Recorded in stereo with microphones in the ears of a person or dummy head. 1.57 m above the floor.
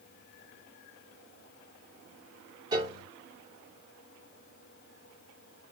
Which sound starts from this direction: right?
A piano, at 2.7 s.